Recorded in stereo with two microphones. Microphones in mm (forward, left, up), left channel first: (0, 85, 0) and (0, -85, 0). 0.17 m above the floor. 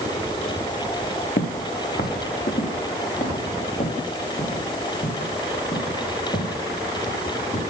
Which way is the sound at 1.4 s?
85° left.